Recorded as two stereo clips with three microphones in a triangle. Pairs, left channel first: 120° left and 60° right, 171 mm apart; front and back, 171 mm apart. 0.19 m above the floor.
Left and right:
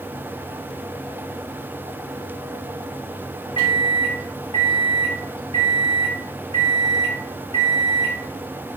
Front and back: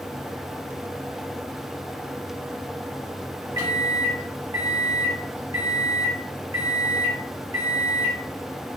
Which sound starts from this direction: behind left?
A microwave, at 3.6 s.